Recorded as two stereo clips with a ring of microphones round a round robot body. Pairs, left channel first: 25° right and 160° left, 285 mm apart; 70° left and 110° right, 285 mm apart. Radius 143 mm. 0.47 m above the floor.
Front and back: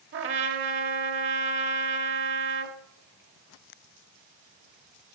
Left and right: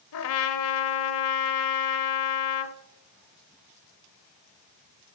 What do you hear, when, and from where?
0.1 s a trumpet: 110° left, 0.8 m